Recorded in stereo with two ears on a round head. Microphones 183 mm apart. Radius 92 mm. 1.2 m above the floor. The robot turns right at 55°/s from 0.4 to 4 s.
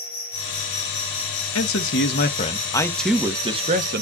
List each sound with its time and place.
0.0 s an insect: 50° left, 5 m; by 4.0 s 115° right, 5 m
1.6 s a man speaking: 95° left, 1.2 m; by 4.0 s 130° right, 1.2 m